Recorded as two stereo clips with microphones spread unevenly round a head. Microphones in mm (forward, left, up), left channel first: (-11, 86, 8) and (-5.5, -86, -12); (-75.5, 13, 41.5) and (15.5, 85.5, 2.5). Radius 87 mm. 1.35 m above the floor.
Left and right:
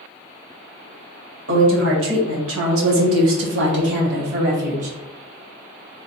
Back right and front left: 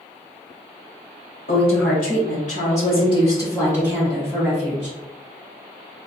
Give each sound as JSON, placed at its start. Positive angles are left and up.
{"t": 1.5, "sound": "a woman speaking", "azimuth_deg": -105, "distance_m": 1.8}